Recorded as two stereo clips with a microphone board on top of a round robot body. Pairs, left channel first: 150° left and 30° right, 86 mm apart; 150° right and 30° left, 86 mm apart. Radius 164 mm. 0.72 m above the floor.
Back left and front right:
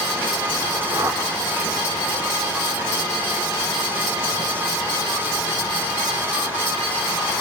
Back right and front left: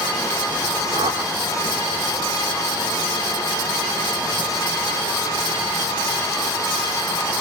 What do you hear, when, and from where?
0.9 s a whoosh: 30° left, 5.5 m